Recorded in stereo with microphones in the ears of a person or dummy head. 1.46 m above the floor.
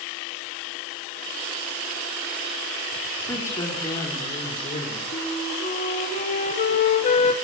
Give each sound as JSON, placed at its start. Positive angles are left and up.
{"t": 3.3, "sound": "a woman speaking", "side_deg": 15, "distance_m": 4.0}
{"t": 5.1, "sound": "a flute", "side_deg": 45, "distance_m": 3.0}